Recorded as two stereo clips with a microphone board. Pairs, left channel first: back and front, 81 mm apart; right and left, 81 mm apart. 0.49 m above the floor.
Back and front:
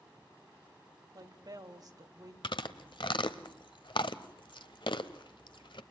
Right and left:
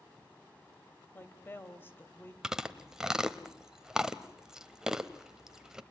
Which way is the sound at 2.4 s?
175° left.